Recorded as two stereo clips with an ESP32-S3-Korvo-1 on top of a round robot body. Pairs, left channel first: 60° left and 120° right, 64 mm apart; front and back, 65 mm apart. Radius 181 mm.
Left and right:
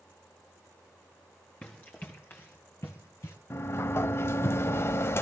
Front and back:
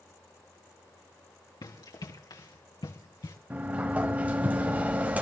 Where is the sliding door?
110° left, 0.5 m.